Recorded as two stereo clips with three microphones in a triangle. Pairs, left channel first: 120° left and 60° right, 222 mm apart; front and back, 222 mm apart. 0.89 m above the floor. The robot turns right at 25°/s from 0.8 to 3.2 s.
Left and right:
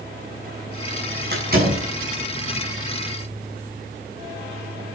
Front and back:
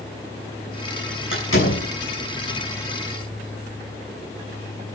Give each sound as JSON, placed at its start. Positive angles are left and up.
{"t": 1.3, "sound": "a door slam", "azimuth_deg": -20, "distance_m": 7.0}